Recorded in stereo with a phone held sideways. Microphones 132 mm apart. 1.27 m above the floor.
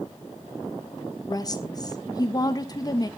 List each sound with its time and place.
1.3 s a woman speaking: 30° left (ahead or behind), 1.3 m